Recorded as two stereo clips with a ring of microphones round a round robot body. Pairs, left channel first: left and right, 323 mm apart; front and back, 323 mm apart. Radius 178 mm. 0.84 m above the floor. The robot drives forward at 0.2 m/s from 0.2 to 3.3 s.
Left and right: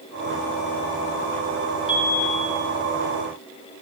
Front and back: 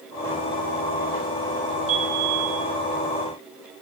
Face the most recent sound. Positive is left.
turn(degrees=165)